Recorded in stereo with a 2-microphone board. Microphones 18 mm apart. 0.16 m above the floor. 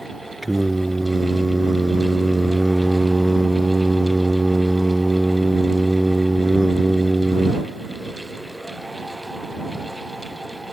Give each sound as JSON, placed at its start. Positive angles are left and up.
{"t": 0.4, "sound": "singing", "side_deg": -10}